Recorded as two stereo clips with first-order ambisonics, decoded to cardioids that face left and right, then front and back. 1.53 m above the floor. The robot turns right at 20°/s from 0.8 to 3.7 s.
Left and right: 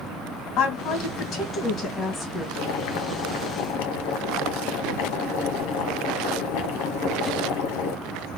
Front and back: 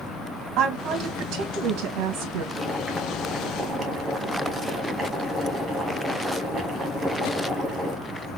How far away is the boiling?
About 0.9 m.